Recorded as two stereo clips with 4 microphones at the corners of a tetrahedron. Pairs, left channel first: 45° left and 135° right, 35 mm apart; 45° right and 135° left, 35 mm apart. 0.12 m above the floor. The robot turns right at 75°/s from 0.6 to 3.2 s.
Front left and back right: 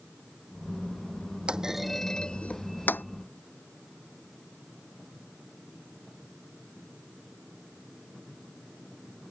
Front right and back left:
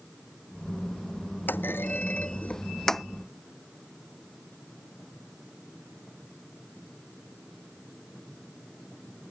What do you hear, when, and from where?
1.5 s a clunk: 75° right; by 3.0 s 45° left